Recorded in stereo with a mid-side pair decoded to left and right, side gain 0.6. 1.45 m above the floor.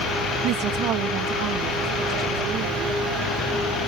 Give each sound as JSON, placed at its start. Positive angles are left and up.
{"t": 0.4, "sound": "a woman speaking", "azimuth_deg": -70}